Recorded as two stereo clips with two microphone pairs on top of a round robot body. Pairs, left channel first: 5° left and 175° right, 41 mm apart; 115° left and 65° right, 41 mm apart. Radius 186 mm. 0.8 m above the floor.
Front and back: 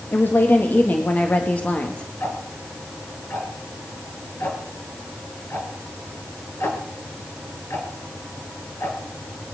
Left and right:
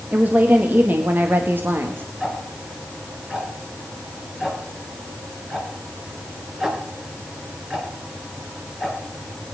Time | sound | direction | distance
0.1 | a woman speaking | 25° right | 2 m
2.2 | ticking | 15° left | 3 m